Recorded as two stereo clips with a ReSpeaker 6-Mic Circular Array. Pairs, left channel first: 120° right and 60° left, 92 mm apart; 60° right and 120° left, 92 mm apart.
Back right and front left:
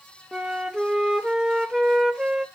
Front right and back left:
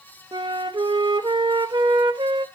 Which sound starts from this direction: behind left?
A flute, at 0.3 s.